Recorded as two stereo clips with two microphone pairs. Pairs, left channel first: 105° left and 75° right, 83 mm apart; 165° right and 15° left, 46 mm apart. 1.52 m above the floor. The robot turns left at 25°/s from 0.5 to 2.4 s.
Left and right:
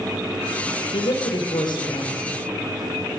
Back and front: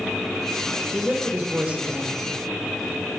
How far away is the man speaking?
About 1.4 m.